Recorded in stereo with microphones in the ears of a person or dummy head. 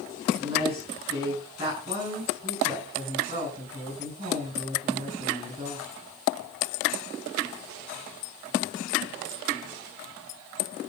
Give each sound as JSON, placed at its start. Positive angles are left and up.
{"t": 0.4, "sound": "a woman speaking", "side_deg": -25, "distance_m": 8.5}